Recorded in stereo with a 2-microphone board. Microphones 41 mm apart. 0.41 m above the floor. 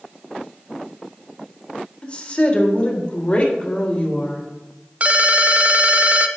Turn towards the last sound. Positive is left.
turn(degrees=-40)  # may be behind; listen again after turning